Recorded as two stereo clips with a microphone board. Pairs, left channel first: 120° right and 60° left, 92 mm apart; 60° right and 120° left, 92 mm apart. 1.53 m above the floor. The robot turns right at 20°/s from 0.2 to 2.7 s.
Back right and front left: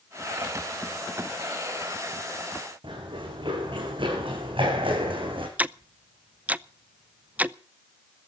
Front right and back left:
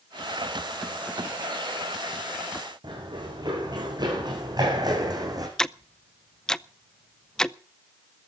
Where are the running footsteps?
85° left, 8 m; by 5.5 s 75° left, 5.5 m.